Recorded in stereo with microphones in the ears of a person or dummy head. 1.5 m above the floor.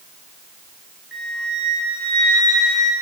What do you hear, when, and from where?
1.1 s a flute: centre (ahead or behind), 1.3 m